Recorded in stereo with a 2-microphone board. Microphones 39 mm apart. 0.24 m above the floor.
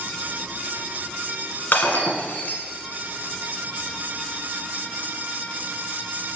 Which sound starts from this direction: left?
Breaking glass, at 1.7 s.